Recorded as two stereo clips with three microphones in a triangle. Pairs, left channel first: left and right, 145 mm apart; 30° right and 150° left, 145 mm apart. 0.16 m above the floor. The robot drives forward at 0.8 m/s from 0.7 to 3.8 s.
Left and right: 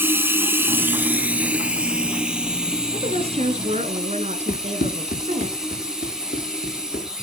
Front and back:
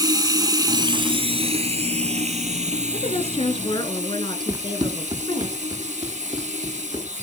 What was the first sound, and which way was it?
Running water, 160° right.